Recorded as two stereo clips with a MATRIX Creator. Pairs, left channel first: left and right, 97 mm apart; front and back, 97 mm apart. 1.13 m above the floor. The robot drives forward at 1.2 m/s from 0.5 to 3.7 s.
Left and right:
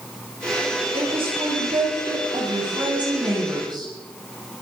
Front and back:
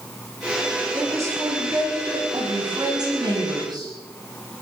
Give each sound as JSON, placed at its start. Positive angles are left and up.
{"t": 0.9, "sound": "a woman speaking", "azimuth_deg": -120, "distance_m": 8.0}